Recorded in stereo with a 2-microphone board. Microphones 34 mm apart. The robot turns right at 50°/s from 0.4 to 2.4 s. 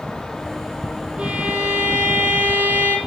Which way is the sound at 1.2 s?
150° right.